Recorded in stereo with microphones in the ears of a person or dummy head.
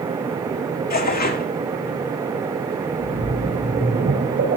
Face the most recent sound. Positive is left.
turn(degrees=-45)  # may be behind; listen again after turning